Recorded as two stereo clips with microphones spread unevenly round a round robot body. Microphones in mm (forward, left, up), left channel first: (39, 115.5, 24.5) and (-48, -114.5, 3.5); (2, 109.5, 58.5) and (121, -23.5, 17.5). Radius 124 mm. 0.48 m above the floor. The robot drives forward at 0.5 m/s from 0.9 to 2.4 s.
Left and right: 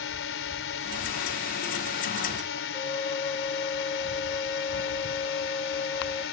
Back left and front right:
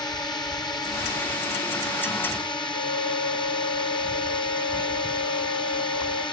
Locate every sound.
0.0 s a drone: 60° left; by 6.3 s 65° left
2.7 s a flute: 140° left